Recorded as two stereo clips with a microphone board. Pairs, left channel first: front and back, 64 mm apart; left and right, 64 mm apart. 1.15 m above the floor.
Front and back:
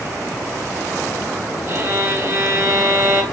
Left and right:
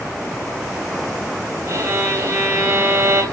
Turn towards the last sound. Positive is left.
turn(degrees=-135)